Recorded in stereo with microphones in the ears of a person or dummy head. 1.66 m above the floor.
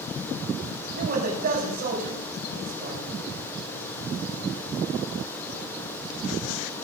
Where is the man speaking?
45° right (ahead or behind), 6.5 m.